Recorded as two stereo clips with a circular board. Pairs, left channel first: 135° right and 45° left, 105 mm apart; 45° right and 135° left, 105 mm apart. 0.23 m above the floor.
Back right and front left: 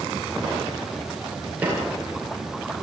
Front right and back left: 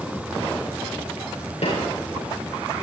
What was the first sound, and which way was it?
A snare drum, 30° right.